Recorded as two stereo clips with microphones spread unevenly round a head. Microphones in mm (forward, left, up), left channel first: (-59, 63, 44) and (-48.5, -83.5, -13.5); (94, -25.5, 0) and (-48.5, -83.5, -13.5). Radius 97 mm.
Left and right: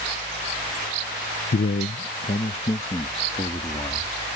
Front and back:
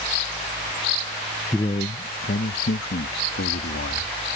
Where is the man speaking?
100° left; by 4.1 s 30° left.